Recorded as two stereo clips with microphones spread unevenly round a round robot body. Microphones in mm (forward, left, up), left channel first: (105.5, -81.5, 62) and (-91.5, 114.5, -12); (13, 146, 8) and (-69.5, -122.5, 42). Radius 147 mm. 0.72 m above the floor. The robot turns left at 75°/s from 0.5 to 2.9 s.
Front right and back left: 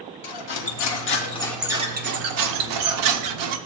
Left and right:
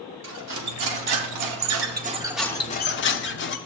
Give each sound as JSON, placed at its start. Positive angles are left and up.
{"t": 0.2, "sound": "cutlery clinking", "azimuth_deg": -55, "distance_m": 0.8}